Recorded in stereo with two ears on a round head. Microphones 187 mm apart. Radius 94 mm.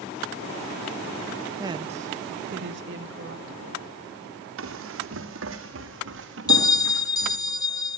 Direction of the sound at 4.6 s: 70° right (ahead or behind).